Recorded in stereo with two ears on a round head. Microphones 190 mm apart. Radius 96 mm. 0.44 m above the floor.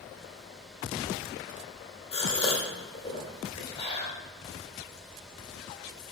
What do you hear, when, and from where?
2.1 s a gasp: 25° left (ahead or behind), 1.3 m